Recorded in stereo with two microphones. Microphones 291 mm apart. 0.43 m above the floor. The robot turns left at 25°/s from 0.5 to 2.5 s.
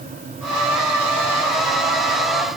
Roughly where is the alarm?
No alarm in this recording.